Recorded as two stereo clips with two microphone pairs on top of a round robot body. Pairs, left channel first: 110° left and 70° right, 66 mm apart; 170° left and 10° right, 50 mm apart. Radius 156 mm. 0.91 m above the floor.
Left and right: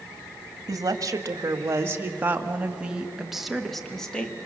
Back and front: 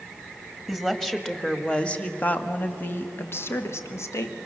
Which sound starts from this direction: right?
A woman speaking, at 0.7 s.